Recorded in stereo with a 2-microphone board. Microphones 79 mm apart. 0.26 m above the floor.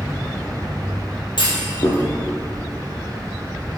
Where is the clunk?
80° left, 3 m.